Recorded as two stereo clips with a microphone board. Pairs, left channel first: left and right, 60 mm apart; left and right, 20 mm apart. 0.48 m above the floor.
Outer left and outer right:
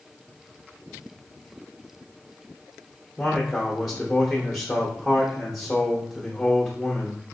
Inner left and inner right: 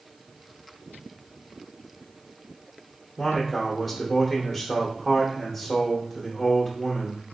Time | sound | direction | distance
3.2 | a man speaking | 5° left (ahead or behind) | 0.9 m